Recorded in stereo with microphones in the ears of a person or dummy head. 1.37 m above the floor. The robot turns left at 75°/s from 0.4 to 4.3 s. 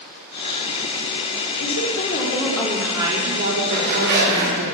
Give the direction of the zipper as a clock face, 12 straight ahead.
1 o'clock.